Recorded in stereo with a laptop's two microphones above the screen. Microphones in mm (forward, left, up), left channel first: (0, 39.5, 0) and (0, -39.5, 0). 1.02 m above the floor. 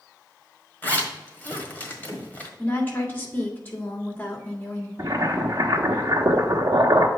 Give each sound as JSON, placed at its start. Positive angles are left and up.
{"t": 0.8, "sound": "a zipper", "side_deg": 25, "distance_m": 1.5}
{"t": 2.6, "sound": "a woman speaking", "side_deg": 25, "distance_m": 2.5}
{"t": 5.0, "sound": "boiling", "side_deg": -45, "distance_m": 1.3}